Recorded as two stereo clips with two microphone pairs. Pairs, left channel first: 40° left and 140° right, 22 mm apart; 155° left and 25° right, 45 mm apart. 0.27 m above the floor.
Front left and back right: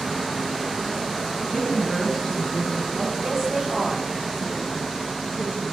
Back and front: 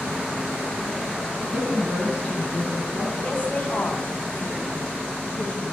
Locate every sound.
1.5 s a woman speaking: 25° right, 2.0 m
3.2 s a woman speaking: 170° left, 1.8 m